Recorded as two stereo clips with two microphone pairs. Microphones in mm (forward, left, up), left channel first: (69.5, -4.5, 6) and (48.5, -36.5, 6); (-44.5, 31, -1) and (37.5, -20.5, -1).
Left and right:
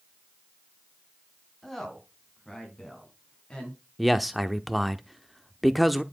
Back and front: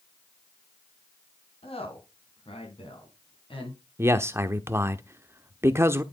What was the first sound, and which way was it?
A woman speaking, 140° left.